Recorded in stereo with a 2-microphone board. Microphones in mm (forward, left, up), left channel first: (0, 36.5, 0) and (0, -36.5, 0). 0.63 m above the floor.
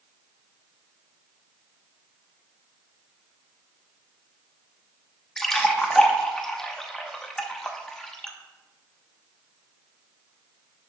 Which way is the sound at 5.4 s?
5° left (ahead or behind).